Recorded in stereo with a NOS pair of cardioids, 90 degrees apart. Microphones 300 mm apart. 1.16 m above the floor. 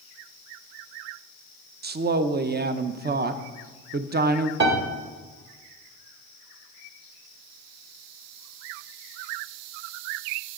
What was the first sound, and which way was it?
A woman speaking, 35° right.